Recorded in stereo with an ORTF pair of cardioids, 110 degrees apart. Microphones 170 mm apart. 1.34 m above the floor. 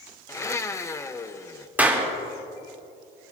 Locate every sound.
0.3 s a blender: 15° left, 0.8 m
1.8 s a clap: 10° right, 3 m